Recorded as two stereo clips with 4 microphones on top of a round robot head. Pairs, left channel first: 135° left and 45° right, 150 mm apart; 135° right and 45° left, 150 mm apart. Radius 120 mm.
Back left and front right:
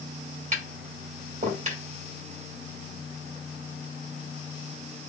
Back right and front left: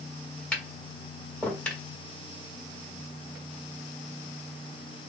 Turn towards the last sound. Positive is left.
turn(degrees=-55)